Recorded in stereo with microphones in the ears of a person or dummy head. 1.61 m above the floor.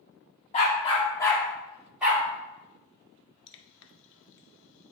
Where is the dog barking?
40° left (ahead or behind), 1.5 m; by 2.2 s 10° right (ahead or behind), 1.8 m.